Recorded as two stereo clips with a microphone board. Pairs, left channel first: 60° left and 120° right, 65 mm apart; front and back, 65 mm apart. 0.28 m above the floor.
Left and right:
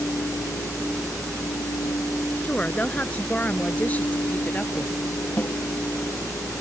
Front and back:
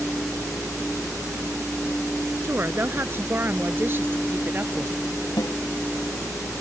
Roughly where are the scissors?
I don't hear scissors.